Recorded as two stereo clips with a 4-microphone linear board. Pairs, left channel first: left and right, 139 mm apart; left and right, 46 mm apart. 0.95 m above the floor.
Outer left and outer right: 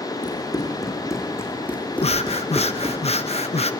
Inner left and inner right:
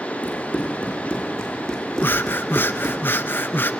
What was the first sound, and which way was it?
Running footsteps, 30° left (ahead or behind).